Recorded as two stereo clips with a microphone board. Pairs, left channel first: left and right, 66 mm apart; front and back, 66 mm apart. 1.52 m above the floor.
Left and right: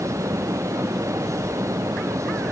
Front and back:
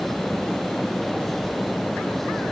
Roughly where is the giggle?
I don't hear a giggle.